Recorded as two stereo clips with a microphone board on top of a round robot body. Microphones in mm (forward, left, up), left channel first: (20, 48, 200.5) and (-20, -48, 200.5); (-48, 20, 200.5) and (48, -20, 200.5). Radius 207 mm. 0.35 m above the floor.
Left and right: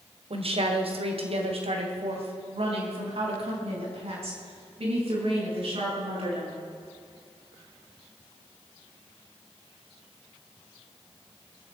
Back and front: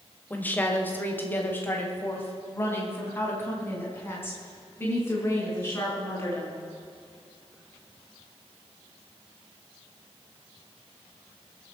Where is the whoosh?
No whoosh in this recording.